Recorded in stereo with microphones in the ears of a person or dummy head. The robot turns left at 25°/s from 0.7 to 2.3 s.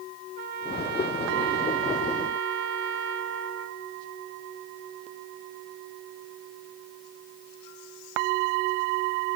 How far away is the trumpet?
About 1.4 m.